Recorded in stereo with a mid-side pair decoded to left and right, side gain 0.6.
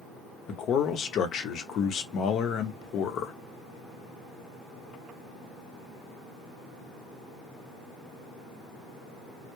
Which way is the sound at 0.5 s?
55° left.